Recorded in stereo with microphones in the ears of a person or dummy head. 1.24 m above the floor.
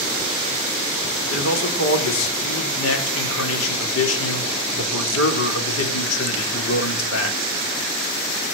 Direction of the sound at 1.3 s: 75° left (ahead or behind).